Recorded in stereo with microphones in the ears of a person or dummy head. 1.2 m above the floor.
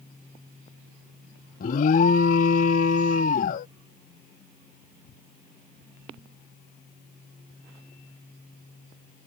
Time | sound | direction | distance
1.6 | an alarm | 45° left (ahead or behind) | ?